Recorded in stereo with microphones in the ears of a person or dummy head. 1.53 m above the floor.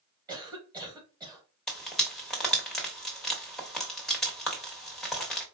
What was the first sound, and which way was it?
A cough, 20° right (ahead or behind).